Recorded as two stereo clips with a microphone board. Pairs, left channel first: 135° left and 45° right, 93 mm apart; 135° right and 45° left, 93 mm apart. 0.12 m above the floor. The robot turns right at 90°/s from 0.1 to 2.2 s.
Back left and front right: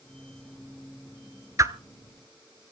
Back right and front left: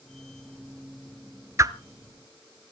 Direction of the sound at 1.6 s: 5° right.